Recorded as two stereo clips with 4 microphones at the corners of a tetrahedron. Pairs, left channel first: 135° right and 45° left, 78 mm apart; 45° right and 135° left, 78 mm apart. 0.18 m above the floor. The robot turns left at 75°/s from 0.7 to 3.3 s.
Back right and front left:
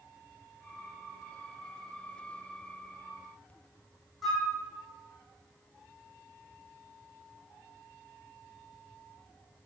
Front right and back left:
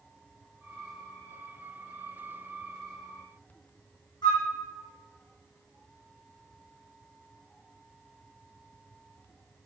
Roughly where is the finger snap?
No finger snap in this recording.